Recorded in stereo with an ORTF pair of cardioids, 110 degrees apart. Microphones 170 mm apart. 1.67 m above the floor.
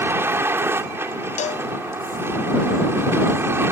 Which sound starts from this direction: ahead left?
A cowbell, at 1.4 s.